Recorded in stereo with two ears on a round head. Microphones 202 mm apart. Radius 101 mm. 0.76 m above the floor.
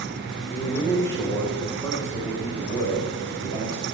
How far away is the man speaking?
About 3 m.